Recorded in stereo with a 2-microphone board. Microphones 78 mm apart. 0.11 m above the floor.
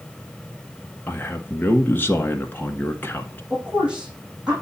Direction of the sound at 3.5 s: 15° right (ahead or behind).